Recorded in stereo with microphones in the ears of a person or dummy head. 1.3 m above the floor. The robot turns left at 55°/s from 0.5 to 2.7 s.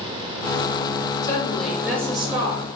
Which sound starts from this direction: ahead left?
A woman speaking, at 1.2 s.